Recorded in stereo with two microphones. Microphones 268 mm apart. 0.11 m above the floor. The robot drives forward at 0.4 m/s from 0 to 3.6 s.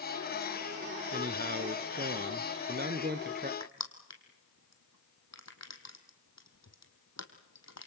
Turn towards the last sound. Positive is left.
turn(degrees=75)  # may be behind; listen again after turning